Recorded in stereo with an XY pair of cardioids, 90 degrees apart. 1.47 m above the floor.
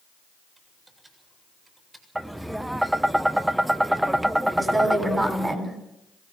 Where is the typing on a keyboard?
25° right, 7.5 m.